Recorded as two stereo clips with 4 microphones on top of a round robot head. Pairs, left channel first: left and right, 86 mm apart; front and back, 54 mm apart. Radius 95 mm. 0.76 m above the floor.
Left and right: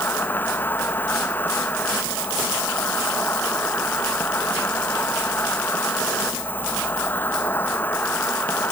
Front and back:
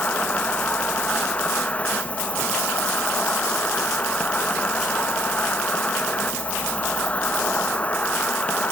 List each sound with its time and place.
0.0 s an insect: 40° left